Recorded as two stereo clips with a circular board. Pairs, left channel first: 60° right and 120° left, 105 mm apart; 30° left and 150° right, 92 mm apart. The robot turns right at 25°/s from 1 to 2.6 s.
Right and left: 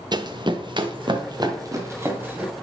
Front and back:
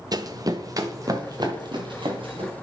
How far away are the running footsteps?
About 0.8 m.